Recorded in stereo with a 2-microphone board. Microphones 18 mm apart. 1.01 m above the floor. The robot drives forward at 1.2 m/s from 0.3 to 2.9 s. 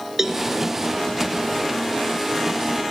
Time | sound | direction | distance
0.2 | a cowbell | 20° right (ahead or behind) | 2.5 m